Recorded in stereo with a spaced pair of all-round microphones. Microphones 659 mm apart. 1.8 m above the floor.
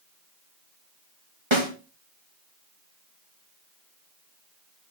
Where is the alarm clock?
No alarm clock in this recording.